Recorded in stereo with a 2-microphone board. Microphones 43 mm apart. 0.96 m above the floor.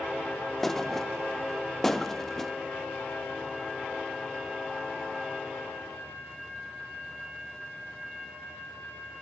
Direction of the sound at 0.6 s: 5° left (ahead or behind).